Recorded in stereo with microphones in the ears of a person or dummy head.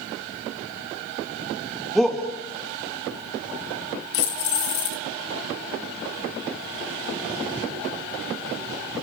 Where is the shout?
Centre (ahead or behind), 2 m.